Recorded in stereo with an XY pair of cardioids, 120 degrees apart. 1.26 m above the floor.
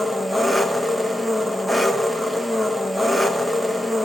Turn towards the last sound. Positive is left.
turn(degrees=-5)